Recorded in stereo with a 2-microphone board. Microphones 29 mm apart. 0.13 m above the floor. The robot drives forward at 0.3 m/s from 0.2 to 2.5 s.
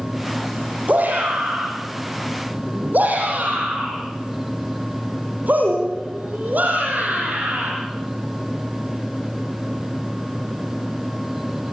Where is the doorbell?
I don't hear a doorbell.